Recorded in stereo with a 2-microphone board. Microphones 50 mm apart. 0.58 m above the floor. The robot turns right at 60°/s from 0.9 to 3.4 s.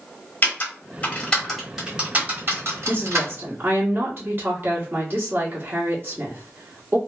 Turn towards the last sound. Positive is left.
turn(degrees=-80)